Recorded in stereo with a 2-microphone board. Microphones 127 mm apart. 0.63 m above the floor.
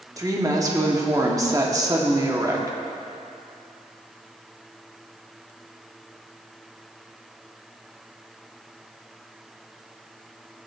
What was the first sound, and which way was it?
A woman speaking, 25° right (ahead or behind).